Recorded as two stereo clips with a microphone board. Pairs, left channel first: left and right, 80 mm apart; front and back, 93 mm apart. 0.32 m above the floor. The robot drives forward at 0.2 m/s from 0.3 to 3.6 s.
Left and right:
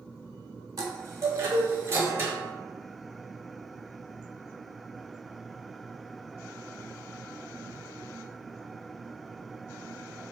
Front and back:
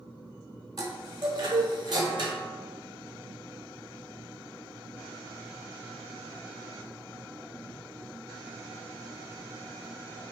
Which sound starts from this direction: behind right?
A chime, at 0.8 s.